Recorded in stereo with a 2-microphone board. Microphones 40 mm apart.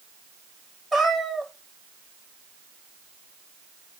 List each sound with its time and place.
0.9 s a cat meowing: centre (ahead or behind), 2.5 m